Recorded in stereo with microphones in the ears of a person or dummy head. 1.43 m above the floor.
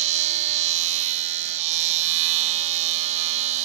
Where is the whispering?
No whispering in this recording.